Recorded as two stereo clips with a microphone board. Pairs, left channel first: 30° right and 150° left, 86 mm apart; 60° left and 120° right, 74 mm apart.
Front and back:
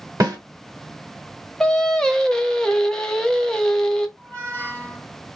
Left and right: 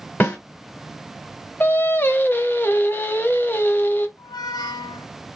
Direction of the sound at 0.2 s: 120° left.